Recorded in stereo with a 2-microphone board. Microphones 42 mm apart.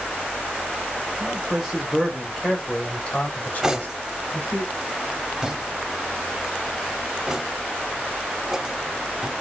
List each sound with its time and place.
1.2 s a man speaking: 25° right (ahead or behind), 1.3 m; by 4.6 s 55° left (ahead or behind), 2 m
3.6 s cutlery clinking: 15° right (ahead or behind), 0.7 m